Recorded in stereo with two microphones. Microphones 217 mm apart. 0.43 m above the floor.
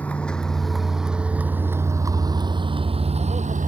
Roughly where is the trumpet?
I don't hear a trumpet.